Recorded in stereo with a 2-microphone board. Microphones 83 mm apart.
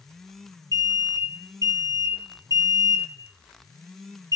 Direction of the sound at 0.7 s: 40° right (ahead or behind).